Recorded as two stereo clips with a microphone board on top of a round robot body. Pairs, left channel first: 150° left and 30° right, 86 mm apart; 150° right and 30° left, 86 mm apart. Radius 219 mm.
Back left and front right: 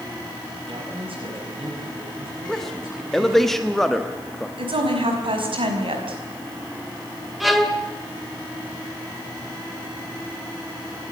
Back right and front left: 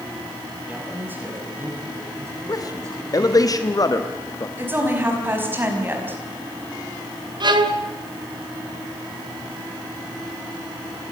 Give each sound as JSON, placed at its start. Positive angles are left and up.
{"t": 0.7, "sound": "a man speaking", "azimuth_deg": -40, "distance_m": 6.0}
{"t": 2.5, "sound": "a man speaking", "azimuth_deg": -125, "distance_m": 1.4}
{"t": 4.6, "sound": "a woman speaking", "azimuth_deg": -35, "distance_m": 5.5}
{"t": 7.4, "sound": "a violin", "azimuth_deg": 60, "distance_m": 2.0}